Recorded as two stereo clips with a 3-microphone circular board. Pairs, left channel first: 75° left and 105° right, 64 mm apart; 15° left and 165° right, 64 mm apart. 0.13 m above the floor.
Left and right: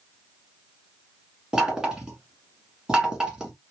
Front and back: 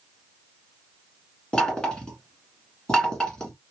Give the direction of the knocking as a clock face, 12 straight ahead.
1 o'clock.